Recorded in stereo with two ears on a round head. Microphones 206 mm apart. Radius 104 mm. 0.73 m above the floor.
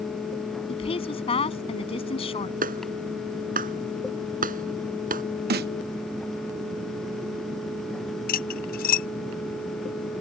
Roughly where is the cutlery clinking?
Left.